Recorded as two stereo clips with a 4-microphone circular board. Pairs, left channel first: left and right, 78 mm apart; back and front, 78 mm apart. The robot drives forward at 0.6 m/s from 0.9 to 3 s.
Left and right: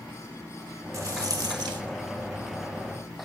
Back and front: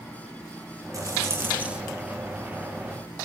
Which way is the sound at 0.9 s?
45° right.